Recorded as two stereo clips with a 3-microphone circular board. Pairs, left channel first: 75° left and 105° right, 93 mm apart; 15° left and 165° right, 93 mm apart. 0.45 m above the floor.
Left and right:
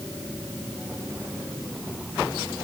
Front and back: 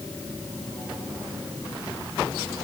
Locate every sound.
Only background noise.